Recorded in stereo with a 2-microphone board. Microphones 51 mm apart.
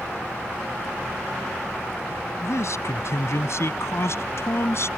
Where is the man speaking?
65° left (ahead or behind); by 4.9 s 60° left (ahead or behind).